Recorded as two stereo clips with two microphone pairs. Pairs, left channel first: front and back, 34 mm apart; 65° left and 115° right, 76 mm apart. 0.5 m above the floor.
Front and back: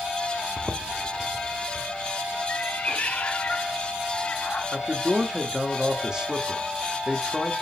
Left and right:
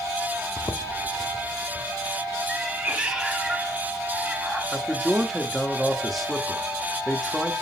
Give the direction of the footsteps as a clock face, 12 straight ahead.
9 o'clock.